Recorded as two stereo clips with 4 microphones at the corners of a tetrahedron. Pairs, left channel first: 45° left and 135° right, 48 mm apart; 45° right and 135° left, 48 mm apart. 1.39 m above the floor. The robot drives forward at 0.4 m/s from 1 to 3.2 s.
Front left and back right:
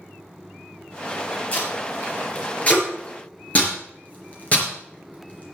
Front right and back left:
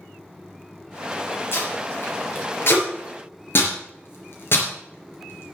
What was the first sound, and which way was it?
Tape being pulled, 10° right.